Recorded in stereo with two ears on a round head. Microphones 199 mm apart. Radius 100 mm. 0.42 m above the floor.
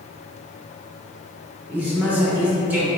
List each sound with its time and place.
1.7 s a man speaking: 10° right (ahead or behind), 1.0 m